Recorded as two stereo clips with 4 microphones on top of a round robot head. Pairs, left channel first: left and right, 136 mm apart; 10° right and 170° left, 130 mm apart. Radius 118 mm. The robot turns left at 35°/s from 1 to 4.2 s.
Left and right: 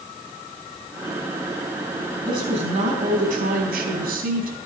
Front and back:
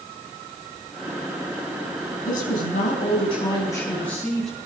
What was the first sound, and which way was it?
A woman speaking, 25° right.